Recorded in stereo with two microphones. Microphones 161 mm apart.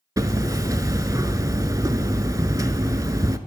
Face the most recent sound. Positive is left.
turn(degrees=-20)  # may be behind; listen again after turning